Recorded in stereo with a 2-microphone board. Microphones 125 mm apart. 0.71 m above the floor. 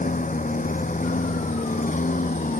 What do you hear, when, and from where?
0.0 s a lawn mower: 90° left; by 2.6 s 85° left